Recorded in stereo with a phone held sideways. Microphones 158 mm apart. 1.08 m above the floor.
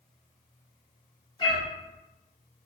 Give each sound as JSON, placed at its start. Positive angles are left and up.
{"t": 1.4, "sound": "a cat meowing", "side_deg": 30, "distance_m": 1.3}